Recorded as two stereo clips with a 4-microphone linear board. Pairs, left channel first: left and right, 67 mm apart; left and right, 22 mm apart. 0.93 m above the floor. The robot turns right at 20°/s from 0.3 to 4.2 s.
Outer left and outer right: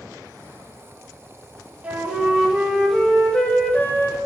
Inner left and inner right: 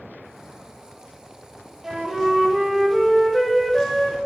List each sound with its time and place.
1.8 s a flute: 20° right, 0.5 m; by 4.2 s 30° left, 0.5 m